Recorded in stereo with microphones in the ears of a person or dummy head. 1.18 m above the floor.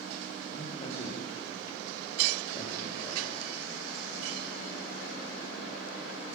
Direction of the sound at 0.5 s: 35° left (ahead or behind).